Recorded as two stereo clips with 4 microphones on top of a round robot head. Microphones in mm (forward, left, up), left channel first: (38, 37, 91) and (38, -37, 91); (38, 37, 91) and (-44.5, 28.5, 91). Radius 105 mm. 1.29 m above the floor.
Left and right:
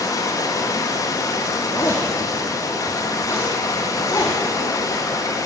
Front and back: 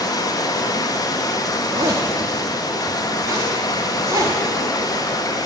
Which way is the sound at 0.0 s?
50° left.